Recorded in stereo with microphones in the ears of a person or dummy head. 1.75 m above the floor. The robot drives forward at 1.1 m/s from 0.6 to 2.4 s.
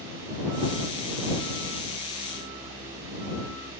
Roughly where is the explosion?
No explosion in this recording.